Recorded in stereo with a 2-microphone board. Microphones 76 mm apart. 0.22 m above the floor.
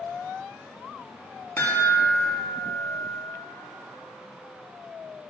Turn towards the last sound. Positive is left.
turn(degrees=35)  # may be behind; listen again after turning